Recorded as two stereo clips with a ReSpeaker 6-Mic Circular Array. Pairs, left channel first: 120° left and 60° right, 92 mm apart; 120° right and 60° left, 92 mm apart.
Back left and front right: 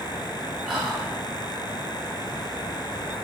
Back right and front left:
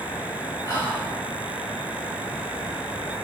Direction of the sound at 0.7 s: 140° right.